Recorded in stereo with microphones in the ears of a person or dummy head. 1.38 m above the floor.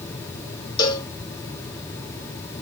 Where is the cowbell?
20° left (ahead or behind), 0.8 m.